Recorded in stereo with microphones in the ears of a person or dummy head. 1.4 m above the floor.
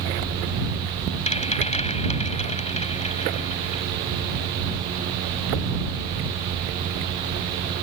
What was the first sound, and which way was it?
A rattle, 30° left (ahead or behind).